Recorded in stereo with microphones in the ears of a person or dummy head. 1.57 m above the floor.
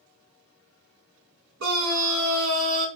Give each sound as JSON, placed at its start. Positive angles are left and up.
{"t": 1.6, "sound": "a scream", "side_deg": -70, "distance_m": 1.1}